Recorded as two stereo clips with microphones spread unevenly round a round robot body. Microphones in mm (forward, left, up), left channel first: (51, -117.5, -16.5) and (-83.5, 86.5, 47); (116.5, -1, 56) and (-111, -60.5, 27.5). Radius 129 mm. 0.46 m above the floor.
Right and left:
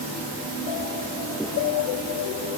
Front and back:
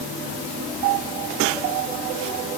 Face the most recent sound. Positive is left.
No sound to turn to.